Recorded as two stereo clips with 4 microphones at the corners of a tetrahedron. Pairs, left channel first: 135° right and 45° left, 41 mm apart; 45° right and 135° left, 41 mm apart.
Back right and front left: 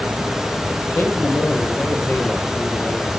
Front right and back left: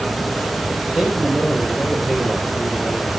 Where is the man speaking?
150° right, 10 m; by 3.2 s 135° right, 8.5 m.